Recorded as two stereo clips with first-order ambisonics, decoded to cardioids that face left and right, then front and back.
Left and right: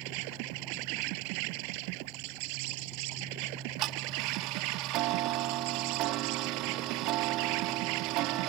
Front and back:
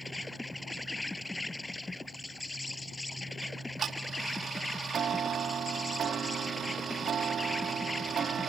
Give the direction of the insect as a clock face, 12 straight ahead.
3 o'clock.